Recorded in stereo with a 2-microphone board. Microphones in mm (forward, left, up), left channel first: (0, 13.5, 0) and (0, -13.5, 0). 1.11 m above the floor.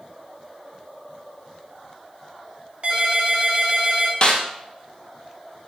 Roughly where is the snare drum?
Left.